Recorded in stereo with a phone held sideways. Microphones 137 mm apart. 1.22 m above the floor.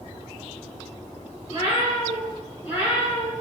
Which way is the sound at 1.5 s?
35° right (ahead or behind).